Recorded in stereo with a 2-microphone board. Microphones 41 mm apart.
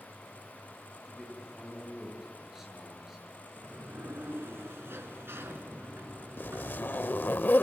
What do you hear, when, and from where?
1.1 s a man speaking: 10° right (ahead or behind), 8 m
3.6 s a sliding door: 75° right (ahead or behind), 2 m
6.4 s a zipper: 55° left (ahead or behind), 0.7 m